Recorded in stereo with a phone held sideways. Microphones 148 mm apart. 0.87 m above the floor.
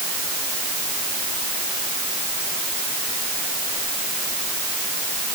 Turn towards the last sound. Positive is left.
No sound to turn to.